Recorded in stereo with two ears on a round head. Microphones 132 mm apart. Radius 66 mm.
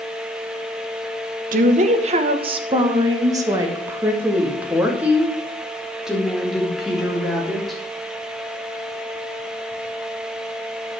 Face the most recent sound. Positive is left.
turn(degrees=0)  # may be behind; listen again after turning